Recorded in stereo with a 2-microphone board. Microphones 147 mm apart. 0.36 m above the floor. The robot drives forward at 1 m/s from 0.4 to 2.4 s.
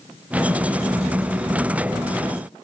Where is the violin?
No violin in this recording.